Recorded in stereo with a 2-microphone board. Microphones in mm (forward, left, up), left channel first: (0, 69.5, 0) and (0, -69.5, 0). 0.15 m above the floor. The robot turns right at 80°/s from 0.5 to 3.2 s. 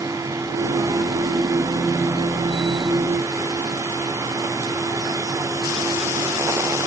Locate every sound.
Only background noise.